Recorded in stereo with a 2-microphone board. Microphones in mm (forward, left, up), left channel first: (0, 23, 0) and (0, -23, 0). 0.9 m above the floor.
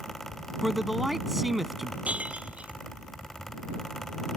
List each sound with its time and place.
0.6 s a man speaking: 5° right (ahead or behind)
2.0 s breaking glass: 30° right (ahead or behind)